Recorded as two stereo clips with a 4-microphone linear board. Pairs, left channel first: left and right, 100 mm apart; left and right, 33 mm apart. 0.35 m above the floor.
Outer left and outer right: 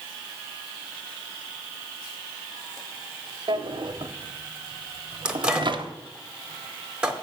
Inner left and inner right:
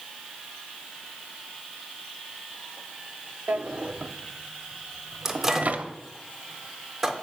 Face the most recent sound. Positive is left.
turn(degrees=-10)  # may be behind; listen again after turning